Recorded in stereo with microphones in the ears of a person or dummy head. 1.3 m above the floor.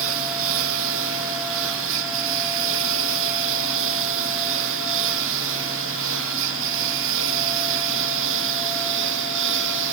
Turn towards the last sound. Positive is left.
turn(degrees=-65)  # may be behind; listen again after turning